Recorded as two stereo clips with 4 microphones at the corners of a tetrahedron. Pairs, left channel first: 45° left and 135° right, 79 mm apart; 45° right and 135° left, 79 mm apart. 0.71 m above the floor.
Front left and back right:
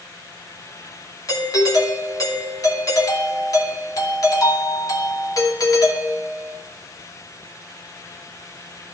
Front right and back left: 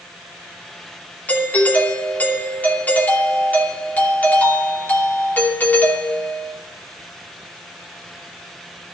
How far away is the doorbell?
About 2.5 m.